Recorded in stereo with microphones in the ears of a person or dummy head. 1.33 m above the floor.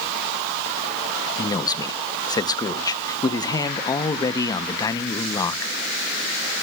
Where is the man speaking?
15° left (ahead or behind), 0.6 m.